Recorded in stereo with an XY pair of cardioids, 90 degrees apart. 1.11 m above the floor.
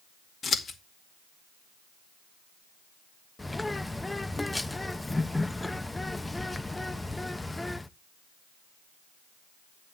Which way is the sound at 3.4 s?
15° left.